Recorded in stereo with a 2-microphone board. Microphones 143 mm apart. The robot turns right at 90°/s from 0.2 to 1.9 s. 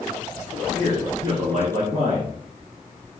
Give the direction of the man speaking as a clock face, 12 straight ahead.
7 o'clock.